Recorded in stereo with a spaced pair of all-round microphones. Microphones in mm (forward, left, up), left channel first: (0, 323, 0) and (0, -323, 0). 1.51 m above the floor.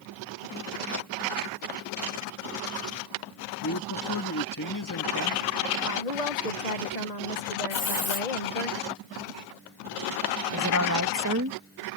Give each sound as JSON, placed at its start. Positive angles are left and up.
{"t": 3.6, "sound": "a man speaking", "side_deg": 30}
{"t": 5.8, "sound": "a woman speaking", "side_deg": 85}
{"t": 7.7, "sound": "a hiss", "side_deg": 70}
{"t": 10.5, "sound": "a woman speaking", "side_deg": -25}